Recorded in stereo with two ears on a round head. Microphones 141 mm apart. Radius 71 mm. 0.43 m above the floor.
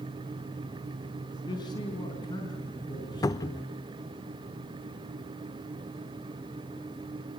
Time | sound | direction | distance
1.5 | a man speaking | 25° left (ahead or behind) | 4.5 m
3.2 | a cupboard door | 20° left (ahead or behind) | 0.5 m